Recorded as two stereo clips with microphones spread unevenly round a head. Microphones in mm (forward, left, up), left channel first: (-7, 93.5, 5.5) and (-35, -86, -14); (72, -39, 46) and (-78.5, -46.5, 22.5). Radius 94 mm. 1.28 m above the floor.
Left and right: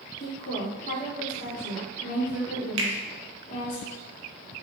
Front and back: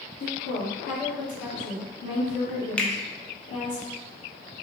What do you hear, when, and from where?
0.2 s a woman speaking: 30° left, 1.2 m
2.8 s a finger snap: 85° right, 0.7 m